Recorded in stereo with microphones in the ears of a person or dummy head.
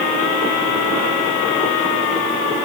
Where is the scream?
No scream in this recording.